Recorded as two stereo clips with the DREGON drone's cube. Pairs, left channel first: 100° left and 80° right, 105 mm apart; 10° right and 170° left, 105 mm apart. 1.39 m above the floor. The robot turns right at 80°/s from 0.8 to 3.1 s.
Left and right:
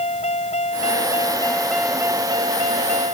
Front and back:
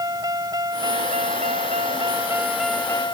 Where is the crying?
I don't hear crying.